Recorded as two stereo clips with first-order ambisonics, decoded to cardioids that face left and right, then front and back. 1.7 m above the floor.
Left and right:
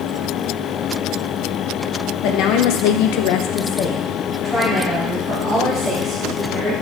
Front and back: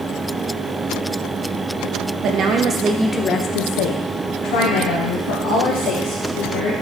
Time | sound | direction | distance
2.2 | a woman speaking | 130° left | 0.9 m